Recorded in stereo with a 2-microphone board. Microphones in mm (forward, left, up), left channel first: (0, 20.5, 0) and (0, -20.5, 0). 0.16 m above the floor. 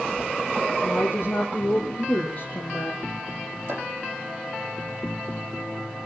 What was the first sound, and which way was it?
A woman speaking, 55° left (ahead or behind).